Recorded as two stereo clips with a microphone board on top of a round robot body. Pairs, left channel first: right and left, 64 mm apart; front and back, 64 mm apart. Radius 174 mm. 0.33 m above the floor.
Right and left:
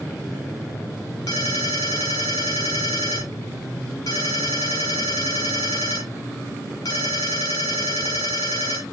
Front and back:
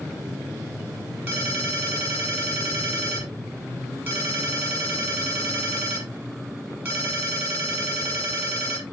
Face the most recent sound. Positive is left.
turn(degrees=-120)